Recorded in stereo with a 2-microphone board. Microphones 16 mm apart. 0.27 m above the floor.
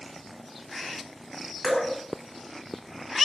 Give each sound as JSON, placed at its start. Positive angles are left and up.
{"t": 1.6, "sound": "dripping", "side_deg": 35, "distance_m": 1.0}